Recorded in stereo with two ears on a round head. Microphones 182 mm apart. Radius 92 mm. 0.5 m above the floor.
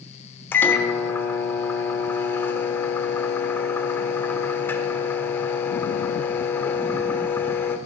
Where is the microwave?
10° left (ahead or behind), 0.8 m.